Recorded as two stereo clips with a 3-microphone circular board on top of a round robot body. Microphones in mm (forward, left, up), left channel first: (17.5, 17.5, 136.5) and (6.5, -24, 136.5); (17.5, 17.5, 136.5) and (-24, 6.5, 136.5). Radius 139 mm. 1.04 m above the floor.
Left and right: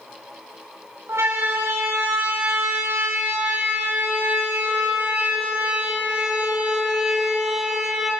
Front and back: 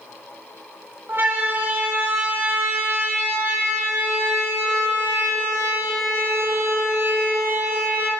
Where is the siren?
120° right, 8 m; by 8.1 s 170° left, 5 m.